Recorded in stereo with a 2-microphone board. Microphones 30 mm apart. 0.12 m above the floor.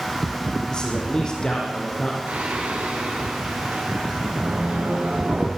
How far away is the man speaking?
About 6 m.